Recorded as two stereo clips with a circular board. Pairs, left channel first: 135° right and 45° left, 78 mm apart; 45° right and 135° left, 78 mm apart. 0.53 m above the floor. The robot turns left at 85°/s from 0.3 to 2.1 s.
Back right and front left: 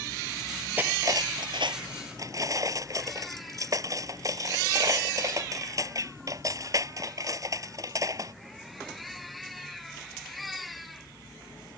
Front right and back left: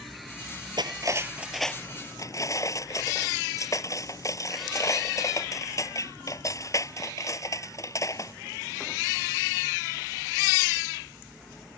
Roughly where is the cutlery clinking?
Behind left.